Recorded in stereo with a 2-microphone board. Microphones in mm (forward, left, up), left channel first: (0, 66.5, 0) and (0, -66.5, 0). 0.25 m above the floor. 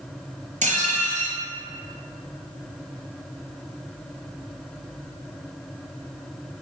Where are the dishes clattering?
65° right (ahead or behind), 3.5 m.